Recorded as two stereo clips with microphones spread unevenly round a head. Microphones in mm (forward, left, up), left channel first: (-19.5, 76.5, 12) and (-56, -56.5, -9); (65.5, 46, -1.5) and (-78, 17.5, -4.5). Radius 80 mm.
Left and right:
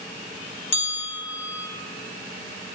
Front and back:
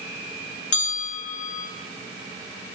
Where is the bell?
15° left, 2.5 m.